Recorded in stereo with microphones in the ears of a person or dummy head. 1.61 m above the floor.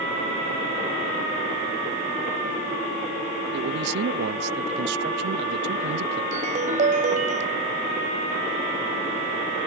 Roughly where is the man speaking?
Right.